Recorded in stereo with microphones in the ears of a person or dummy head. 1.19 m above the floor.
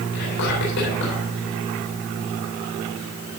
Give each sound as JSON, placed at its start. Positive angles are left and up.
{"t": 0.1, "sound": "whispering", "side_deg": 55, "distance_m": 4.0}